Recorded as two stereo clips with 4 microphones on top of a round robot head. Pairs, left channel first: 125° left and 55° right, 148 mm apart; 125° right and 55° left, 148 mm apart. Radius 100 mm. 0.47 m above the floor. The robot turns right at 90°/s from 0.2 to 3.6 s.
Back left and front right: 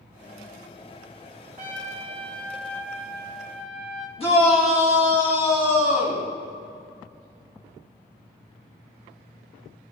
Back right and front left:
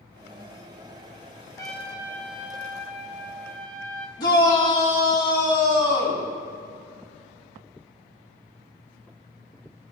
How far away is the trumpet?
About 1.7 m.